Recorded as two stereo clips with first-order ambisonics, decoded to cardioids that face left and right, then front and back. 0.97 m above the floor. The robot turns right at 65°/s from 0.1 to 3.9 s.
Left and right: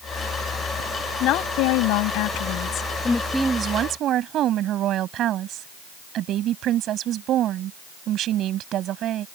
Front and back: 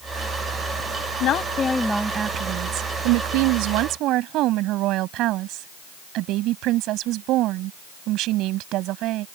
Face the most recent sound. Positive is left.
turn(degrees=-140)